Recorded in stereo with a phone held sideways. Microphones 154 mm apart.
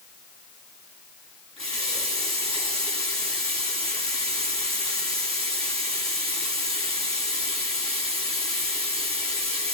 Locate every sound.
1.6 s a running tap: 40° right (ahead or behind), 7.5 m